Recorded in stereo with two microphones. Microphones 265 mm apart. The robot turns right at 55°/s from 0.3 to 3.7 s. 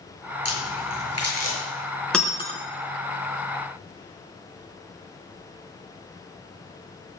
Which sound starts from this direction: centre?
Breaking glass, at 2.1 s.